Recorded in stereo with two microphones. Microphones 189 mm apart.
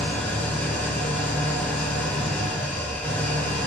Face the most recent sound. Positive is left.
turn(degrees=10)  # may be behind; listen again after turning